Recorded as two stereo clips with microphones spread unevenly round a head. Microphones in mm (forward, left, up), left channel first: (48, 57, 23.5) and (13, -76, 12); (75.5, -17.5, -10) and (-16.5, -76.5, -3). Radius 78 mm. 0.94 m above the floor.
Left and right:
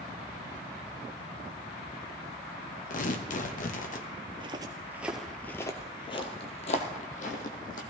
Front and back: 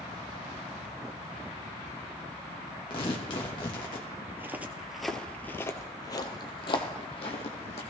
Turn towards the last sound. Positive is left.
turn(degrees=70)